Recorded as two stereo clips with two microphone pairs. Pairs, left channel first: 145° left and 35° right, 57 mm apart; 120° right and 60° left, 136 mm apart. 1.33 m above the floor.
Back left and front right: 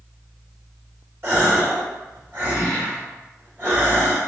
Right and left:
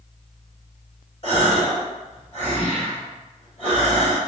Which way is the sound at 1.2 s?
85° right.